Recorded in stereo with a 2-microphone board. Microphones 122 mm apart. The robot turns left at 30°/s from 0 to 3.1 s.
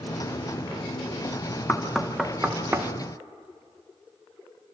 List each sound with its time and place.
1.7 s knocking: 10° left (ahead or behind), 1.1 m; by 2.9 s 25° right (ahead or behind), 1.1 m